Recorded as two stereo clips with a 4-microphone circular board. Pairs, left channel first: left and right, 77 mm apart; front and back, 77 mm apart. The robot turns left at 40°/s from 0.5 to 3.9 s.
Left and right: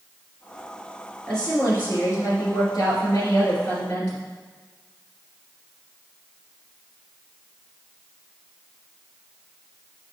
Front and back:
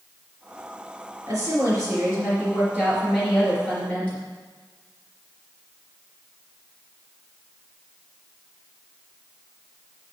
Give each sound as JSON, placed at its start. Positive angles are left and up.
{"t": 1.3, "sound": "a woman speaking", "azimuth_deg": 170, "distance_m": 3.0}